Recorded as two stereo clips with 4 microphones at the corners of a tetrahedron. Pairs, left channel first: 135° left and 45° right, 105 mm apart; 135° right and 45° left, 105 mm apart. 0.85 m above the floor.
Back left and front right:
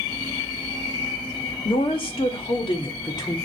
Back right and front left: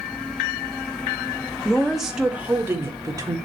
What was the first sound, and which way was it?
A woman speaking, 145° left.